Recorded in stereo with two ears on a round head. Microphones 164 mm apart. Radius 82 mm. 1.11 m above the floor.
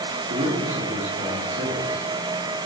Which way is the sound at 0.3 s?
50° right (ahead or behind).